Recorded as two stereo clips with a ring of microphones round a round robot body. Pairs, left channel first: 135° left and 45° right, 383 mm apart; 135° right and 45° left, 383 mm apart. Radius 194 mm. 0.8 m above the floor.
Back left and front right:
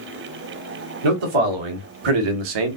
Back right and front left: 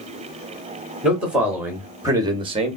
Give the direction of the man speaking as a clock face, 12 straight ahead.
1 o'clock.